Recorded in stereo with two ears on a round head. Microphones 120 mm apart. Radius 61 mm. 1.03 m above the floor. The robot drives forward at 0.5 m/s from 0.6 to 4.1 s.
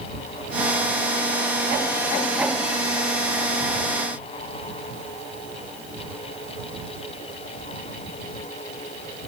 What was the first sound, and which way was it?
Only background noise.